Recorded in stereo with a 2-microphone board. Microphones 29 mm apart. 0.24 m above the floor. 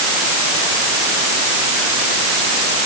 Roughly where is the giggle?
I don't hear a giggle.